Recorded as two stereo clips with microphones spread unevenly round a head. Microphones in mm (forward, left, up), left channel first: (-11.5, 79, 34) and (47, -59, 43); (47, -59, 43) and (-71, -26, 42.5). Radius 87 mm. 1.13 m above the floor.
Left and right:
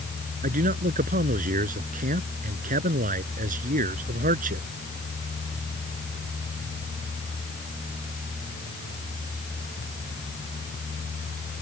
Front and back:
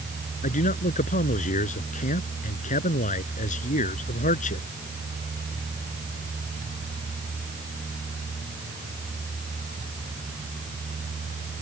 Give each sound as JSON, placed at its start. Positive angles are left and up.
{"t": 0.4, "sound": "a man speaking", "azimuth_deg": -35}